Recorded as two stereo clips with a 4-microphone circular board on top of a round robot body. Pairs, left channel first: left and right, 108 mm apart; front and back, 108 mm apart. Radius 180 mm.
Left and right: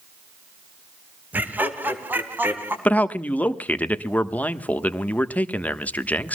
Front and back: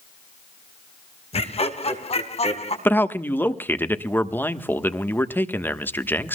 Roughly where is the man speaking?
Ahead left.